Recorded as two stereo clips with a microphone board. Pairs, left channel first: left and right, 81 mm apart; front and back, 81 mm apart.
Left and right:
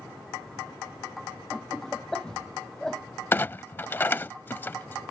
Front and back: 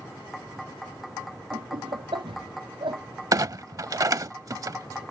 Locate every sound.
1.5 s laughter: 170° left
3.3 s a clunk: 150° left